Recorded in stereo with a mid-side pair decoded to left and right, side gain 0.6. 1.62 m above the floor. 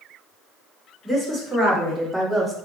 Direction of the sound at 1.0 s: Straight ahead.